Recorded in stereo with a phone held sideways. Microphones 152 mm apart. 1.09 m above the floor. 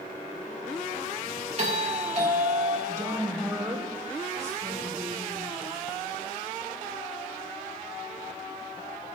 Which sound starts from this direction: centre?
A woman speaking, at 2.9 s.